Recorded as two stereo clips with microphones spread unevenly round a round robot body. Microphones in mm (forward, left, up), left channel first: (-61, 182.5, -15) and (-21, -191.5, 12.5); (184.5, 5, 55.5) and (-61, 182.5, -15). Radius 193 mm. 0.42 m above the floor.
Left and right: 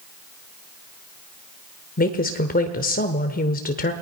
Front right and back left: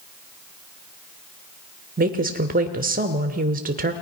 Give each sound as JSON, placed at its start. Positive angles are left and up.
{"t": 2.0, "sound": "a woman speaking", "azimuth_deg": 145, "distance_m": 1.1}